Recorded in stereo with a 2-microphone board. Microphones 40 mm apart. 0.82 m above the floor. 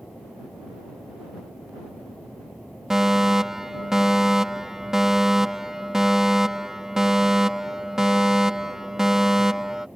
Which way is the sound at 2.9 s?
10° right (ahead or behind).